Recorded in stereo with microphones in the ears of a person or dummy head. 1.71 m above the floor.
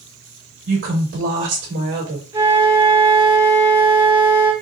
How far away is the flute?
About 1.3 m.